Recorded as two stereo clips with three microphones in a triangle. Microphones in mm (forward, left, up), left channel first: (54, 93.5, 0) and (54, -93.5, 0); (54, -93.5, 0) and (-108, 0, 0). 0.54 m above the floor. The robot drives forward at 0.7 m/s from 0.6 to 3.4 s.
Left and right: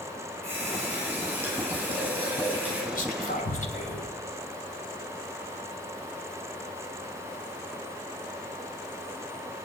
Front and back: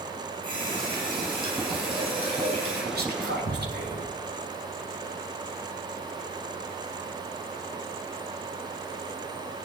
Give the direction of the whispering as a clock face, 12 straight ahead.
8 o'clock.